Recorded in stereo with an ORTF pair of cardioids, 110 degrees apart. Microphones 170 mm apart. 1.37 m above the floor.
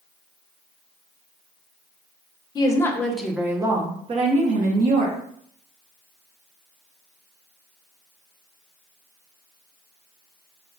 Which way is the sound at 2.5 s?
25° left.